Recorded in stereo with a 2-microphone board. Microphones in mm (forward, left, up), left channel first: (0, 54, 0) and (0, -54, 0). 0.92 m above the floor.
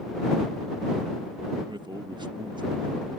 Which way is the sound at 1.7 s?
45° right (ahead or behind).